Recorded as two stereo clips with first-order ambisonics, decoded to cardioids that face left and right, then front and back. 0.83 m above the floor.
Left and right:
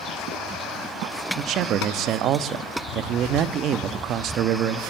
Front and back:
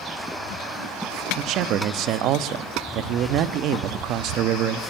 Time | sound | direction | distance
1.4 | a man speaking | 140° right | 1.0 m